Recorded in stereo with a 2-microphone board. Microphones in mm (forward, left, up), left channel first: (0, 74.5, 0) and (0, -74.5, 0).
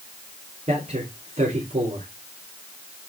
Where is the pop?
No pop in this recording.